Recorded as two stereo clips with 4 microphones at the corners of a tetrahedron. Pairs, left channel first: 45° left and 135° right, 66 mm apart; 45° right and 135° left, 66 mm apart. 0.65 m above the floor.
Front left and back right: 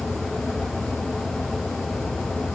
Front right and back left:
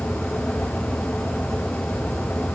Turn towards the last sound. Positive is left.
No sound to turn to.